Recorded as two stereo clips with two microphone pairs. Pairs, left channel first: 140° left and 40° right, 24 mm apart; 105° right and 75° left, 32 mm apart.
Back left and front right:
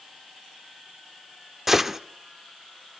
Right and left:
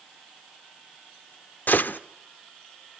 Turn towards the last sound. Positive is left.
turn(degrees=-120)